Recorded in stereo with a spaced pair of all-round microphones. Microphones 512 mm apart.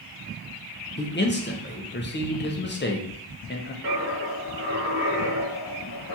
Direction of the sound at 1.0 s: 20° left (ahead or behind).